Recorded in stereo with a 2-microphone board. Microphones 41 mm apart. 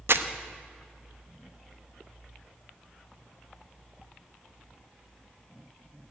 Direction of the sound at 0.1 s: 60° right (ahead or behind).